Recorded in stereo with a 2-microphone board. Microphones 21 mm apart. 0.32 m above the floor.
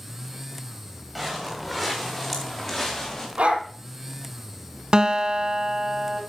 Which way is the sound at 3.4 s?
75° right (ahead or behind).